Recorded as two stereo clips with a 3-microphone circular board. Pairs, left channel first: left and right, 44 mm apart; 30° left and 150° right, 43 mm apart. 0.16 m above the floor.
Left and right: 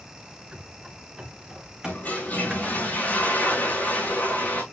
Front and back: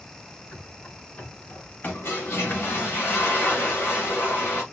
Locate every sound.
0.5 s running footsteps: 15° right, 4.5 m; by 2.8 s 10° right, 3 m
1.8 s a toilet flushing: 45° left, 5.5 m